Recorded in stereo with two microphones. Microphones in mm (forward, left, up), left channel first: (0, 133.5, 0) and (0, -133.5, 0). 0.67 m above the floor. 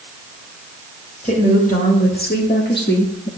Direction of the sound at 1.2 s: 30° left (ahead or behind).